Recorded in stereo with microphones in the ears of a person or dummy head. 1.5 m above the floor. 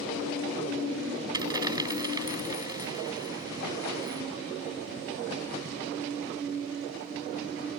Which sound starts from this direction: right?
A dropped coin, at 1.3 s.